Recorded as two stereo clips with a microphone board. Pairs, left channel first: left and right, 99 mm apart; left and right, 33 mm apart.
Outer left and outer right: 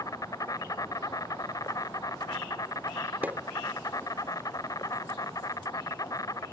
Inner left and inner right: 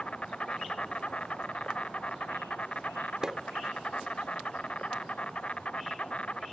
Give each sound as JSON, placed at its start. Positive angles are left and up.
{"t": 0.0, "sound": "an insect", "side_deg": 35}
{"t": 3.2, "sound": "a pop", "side_deg": -20}